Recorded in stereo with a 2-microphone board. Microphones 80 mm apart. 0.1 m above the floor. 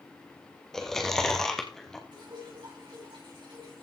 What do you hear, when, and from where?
0.7 s chewing: 5° left (ahead or behind), 1.9 m
2.1 s dripping: 75° right (ahead or behind), 6.5 m